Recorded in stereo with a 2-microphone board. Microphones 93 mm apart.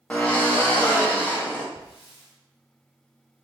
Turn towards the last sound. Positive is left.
turn(degrees=80)